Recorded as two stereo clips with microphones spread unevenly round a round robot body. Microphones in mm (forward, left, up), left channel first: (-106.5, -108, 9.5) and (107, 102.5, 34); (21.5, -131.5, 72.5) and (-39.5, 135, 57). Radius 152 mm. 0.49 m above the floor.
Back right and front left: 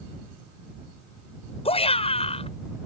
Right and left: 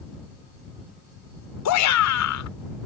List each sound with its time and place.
1.6 s a shout: 70° right